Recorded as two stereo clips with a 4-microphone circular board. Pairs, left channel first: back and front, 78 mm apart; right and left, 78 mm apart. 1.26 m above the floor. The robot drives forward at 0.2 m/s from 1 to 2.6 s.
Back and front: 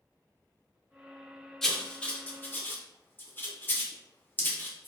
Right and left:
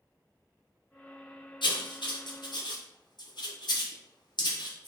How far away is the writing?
About 0.5 m.